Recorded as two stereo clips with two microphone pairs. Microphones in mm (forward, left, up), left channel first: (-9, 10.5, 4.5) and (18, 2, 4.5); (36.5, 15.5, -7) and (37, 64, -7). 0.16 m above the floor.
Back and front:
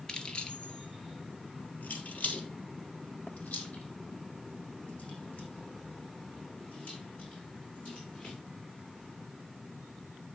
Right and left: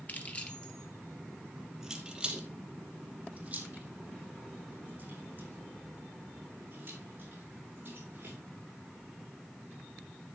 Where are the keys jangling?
140° right, 1.6 m; by 8.4 s 130° left, 8 m.